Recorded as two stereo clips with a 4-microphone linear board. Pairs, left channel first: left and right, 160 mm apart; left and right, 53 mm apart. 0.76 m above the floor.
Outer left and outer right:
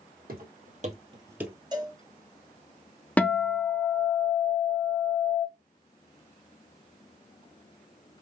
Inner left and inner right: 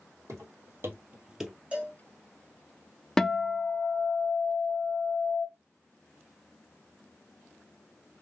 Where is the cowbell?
25° right (ahead or behind), 1.8 m.